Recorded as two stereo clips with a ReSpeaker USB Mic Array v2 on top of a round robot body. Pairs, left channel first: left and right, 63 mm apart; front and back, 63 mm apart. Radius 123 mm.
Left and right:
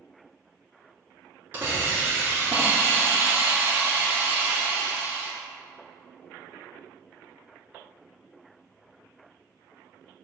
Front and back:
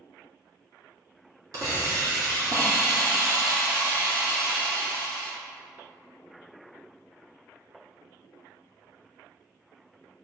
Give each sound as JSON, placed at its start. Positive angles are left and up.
{"t": 1.5, "sound": "a hiss", "azimuth_deg": -150, "distance_m": 2.0}